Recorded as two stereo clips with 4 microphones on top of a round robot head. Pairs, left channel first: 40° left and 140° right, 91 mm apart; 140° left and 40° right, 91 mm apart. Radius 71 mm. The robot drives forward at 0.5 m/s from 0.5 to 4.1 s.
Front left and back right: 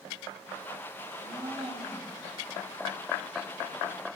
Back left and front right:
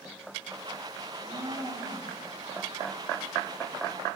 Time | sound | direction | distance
1.0 | a blender | 80° right | 3 m